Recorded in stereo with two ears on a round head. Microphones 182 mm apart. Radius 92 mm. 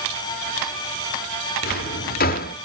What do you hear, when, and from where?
1.6 s a drawer: 45° left (ahead or behind), 1.1 m